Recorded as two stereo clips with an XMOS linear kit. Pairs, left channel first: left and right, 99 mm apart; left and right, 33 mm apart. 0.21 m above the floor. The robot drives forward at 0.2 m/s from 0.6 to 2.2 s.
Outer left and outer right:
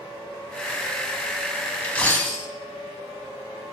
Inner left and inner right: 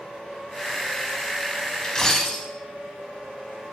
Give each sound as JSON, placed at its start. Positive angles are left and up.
{"t": 1.8, "sound": "a dropped coin", "side_deg": 10, "distance_m": 0.5}